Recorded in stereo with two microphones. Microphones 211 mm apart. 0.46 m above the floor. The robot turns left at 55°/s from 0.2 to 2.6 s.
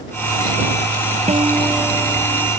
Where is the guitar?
145° right; by 2.5 s 145° left.